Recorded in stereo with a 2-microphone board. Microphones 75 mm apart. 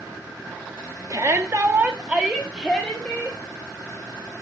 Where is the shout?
50° right (ahead or behind), 1.3 m; by 3.4 s 10° left (ahead or behind), 2.5 m.